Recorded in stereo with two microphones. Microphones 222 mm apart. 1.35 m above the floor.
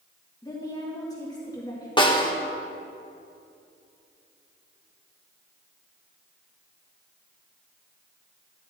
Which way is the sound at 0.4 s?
15° left (ahead or behind).